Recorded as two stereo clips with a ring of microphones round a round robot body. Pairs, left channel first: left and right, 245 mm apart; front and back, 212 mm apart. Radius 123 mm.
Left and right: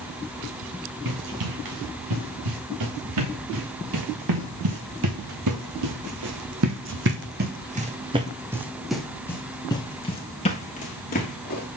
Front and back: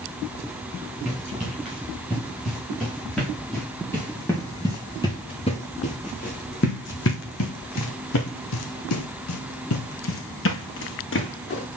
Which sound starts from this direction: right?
Running footsteps, at 1.1 s.